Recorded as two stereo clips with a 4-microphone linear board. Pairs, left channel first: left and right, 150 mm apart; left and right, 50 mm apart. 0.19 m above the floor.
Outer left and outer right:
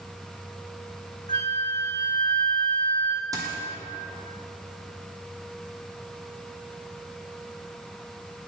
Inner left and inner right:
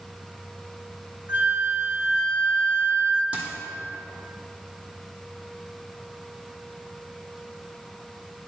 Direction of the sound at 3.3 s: 25° right (ahead or behind).